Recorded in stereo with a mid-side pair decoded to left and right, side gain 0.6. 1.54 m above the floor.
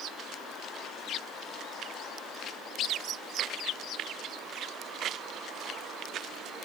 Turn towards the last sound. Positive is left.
No sound to turn to.